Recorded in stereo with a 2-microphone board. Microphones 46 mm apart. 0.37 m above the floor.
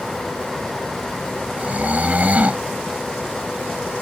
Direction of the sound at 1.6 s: 35° right (ahead or behind).